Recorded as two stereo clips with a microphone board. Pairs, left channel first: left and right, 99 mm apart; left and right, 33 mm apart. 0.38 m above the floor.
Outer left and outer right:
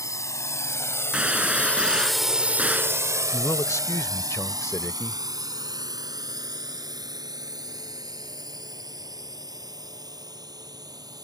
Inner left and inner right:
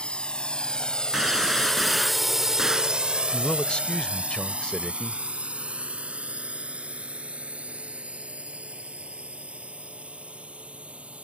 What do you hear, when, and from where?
0.0 s a drone: 35° left (ahead or behind); by 11.2 s 40° right (ahead or behind)
1.1 s a gunshot: 10° right (ahead or behind)
3.3 s a man speaking: 30° left (ahead or behind)